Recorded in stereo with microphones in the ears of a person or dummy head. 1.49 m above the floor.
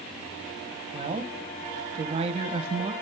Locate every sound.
0.9 s a woman speaking: 30° right (ahead or behind), 1.4 m